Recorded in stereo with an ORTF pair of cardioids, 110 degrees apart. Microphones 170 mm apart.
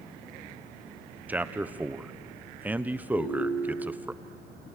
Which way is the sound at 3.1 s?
35° left.